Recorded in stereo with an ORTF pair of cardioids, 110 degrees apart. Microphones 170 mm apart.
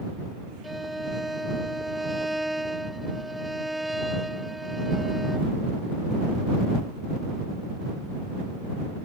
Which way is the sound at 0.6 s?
Straight ahead.